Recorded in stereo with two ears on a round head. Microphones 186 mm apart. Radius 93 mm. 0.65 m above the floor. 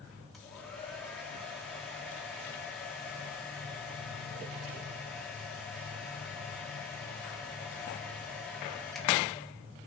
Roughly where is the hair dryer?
Centre.